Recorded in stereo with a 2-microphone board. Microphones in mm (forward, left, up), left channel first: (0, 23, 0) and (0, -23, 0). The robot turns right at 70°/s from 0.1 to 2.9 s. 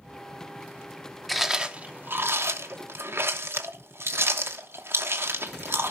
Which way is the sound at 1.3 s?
Centre (ahead or behind).